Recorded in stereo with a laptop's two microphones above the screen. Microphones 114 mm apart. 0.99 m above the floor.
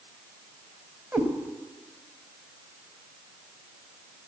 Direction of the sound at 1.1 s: 10° right (ahead or behind).